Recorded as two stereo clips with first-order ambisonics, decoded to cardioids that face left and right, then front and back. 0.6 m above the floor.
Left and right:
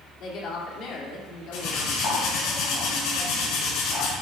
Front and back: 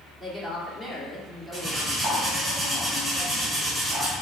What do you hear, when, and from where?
0.2 s a woman speaking: 110° left, 1.5 m
1.5 s cutlery clinking: 105° left, 3 m